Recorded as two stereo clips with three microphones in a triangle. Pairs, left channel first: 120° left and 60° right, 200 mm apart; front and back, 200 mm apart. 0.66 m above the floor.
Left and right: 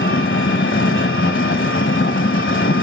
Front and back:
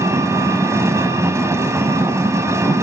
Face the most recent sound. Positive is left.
turn(degrees=105)